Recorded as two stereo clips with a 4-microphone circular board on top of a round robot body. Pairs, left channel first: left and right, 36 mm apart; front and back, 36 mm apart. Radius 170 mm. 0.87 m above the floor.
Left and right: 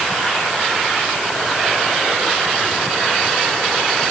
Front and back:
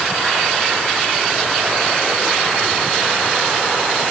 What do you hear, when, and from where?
Only background noise.